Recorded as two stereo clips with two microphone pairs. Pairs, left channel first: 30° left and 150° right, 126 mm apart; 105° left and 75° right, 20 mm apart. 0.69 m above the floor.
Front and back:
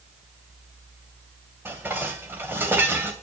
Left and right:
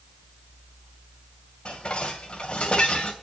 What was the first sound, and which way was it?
Dishes clattering, 135° left.